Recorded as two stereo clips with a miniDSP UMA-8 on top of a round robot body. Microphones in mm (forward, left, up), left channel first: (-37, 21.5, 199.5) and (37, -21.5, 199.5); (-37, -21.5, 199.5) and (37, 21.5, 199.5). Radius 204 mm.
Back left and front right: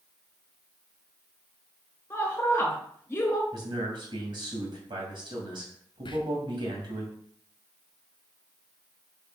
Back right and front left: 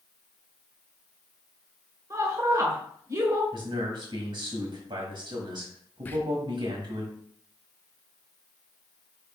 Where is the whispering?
145° left, 1.1 m.